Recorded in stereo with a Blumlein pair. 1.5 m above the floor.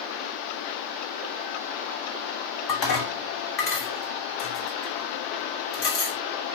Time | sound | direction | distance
2.7 | dishes clattering | 40° left | 2.5 m